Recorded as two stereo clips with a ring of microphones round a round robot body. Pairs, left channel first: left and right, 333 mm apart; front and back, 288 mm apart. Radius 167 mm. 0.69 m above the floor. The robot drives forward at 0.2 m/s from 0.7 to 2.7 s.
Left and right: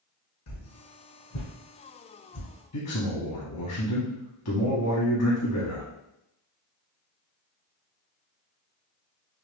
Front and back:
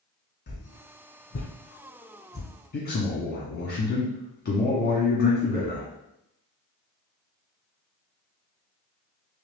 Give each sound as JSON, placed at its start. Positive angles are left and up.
{"t": 0.5, "sound": "a whoosh", "azimuth_deg": 50, "distance_m": 1.3}
{"t": 2.7, "sound": "a man speaking", "azimuth_deg": 55, "distance_m": 1.0}